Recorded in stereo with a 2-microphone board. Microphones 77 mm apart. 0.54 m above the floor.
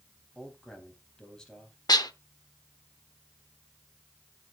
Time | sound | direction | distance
0.3 | a man speaking | 10° left (ahead or behind) | 3.5 m
1.9 | dishes clattering | 60° left (ahead or behind) | 0.8 m